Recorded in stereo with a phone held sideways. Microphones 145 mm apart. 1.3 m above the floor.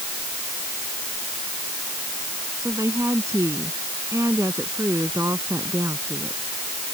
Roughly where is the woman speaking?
Right.